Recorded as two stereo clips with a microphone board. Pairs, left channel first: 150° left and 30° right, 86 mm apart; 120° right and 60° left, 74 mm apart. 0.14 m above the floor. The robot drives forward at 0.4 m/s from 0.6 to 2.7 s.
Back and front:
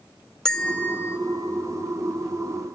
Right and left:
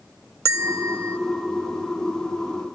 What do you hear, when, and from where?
0.5 s a bell: 70° left, 0.6 m; by 1.2 s 105° left, 0.6 m